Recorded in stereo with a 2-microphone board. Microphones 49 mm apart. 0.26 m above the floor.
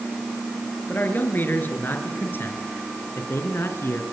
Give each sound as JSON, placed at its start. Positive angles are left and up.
{"t": 0.9, "sound": "a man speaking", "side_deg": 40, "distance_m": 4.5}